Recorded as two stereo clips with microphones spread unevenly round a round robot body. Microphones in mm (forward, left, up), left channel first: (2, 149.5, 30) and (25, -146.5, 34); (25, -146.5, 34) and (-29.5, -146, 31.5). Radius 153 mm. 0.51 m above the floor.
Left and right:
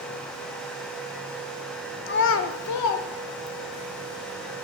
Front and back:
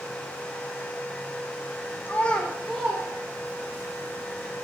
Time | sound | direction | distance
2.1 | a child speaking | 45° left | 0.7 m